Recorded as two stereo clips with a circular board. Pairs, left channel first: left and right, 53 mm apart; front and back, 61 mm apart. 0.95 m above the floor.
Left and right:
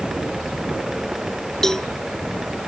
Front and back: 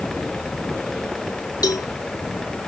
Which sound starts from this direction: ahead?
A cowbell, at 1.6 s.